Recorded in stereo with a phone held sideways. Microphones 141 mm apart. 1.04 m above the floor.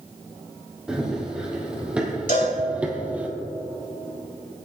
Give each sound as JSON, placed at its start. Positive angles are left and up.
{"t": 0.9, "sound": "running footsteps", "side_deg": -5, "distance_m": 3.0}
{"t": 2.3, "sound": "a cowbell", "side_deg": 75, "distance_m": 4.5}